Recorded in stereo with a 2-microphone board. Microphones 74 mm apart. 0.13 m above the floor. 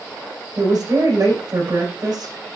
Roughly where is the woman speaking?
Right.